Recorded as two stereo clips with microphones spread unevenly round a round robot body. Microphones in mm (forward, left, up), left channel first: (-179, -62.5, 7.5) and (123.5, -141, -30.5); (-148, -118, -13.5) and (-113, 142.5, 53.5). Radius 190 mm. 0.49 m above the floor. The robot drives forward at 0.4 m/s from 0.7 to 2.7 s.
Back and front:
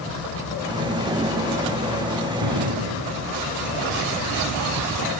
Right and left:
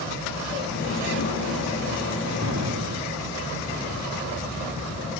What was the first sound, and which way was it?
An explosion, 25° left.